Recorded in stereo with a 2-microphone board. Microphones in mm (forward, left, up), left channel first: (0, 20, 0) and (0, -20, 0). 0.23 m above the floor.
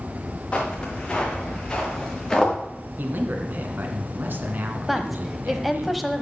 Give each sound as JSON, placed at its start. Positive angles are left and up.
{"t": 0.5, "sound": "footsteps", "side_deg": 25, "distance_m": 5.0}
{"t": 3.0, "sound": "a man speaking", "side_deg": -55, "distance_m": 1.9}
{"t": 4.9, "sound": "a woman speaking", "side_deg": -5, "distance_m": 1.1}